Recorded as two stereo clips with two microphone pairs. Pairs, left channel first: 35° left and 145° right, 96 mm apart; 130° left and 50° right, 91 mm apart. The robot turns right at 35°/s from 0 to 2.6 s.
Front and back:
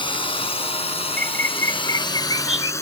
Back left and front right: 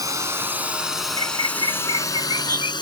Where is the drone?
Straight ahead; by 2.8 s 95° left.